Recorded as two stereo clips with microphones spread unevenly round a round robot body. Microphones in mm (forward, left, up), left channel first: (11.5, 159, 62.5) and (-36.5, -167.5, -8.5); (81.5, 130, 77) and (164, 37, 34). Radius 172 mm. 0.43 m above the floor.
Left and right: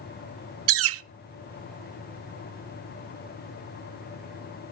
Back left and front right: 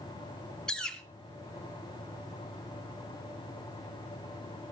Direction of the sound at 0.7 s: 130° right.